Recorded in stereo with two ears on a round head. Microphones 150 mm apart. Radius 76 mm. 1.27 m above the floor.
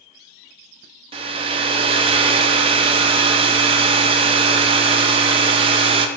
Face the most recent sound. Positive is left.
turn(degrees=-30)  # may be behind; listen again after turning